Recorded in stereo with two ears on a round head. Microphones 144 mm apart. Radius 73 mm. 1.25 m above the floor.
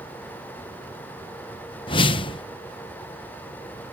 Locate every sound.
1.9 s a whoosh: 30° left (ahead or behind)